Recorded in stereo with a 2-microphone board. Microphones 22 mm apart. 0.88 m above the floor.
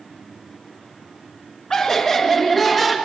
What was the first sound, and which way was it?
Laughter, 30° left (ahead or behind).